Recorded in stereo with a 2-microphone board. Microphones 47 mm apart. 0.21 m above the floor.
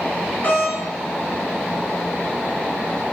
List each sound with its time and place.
0.4 s a doorbell: 40° left (ahead or behind), 4 m